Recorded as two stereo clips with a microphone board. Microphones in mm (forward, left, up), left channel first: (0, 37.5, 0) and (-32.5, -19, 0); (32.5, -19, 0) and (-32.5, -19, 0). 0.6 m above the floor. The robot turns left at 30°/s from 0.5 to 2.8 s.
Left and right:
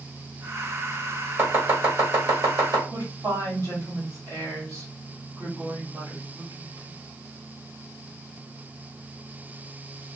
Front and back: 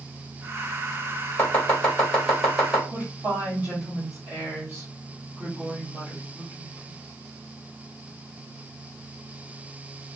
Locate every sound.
1.4 s chopping: 65° right, 1.4 m; by 2.8 s 110° right, 1.4 m
2.9 s a woman speaking: 125° right, 1.5 m